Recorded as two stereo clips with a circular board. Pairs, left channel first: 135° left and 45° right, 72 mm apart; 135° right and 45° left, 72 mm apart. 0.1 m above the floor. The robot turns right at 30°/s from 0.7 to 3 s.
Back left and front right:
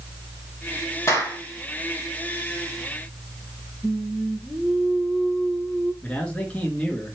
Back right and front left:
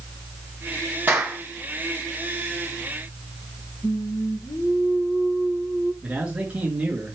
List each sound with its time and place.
1.1 s a clap: 105° left, 3 m; by 1.4 s 115° left, 3 m
3.8 s singing: 145° right, 1.5 m
6.0 s a man speaking: 90° left, 1.4 m